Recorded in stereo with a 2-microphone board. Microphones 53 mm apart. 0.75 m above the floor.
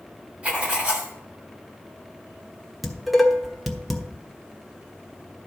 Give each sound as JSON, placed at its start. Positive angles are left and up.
{"t": 0.4, "sound": "writing", "side_deg": -25, "distance_m": 2.5}
{"t": 2.8, "sound": "dishes clattering", "side_deg": 0, "distance_m": 1.2}